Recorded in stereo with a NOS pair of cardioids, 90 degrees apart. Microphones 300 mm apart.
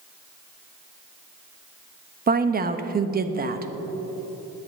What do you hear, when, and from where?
2.3 s a woman speaking: 30° right, 1.2 m